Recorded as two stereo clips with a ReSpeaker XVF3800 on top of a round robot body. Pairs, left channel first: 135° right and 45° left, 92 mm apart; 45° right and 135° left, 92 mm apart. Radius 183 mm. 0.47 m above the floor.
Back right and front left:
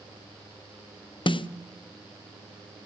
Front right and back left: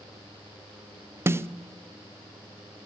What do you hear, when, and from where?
1.3 s a snare drum: 160° right, 0.6 m